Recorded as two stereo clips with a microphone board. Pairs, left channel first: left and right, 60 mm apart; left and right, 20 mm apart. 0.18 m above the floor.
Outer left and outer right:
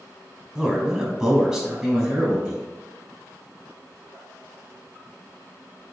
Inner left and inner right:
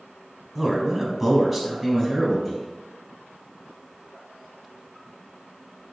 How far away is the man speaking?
About 1.0 m.